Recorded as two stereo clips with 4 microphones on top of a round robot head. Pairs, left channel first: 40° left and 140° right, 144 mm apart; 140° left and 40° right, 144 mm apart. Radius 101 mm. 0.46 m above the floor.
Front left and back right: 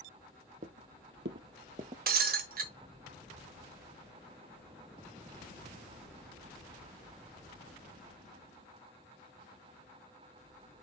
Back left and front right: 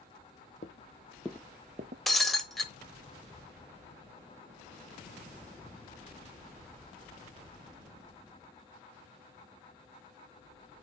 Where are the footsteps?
175° left, 0.9 m; by 2.0 s 75° right, 0.8 m.